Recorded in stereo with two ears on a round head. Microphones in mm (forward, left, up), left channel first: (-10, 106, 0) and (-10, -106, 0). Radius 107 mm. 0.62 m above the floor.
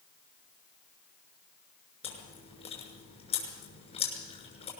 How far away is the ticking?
No ticking in this recording.